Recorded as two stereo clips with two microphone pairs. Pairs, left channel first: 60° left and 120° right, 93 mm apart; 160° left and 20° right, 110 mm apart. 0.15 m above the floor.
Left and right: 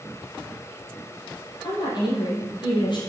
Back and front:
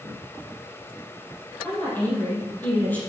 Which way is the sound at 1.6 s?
90° left.